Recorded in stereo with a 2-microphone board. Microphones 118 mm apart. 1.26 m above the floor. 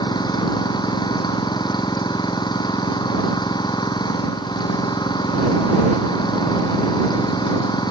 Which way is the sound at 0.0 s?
40° left (ahead or behind).